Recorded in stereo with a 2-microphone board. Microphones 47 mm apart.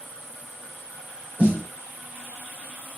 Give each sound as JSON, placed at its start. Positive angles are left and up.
{"t": 1.4, "sound": "a snare drum", "side_deg": -35, "distance_m": 2.5}